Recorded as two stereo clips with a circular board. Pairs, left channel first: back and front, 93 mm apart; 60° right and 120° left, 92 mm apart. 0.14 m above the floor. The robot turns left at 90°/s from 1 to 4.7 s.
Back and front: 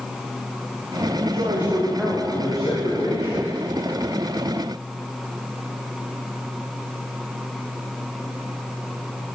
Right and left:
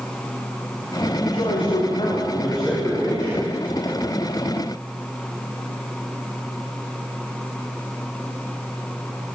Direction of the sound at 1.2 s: 5° right.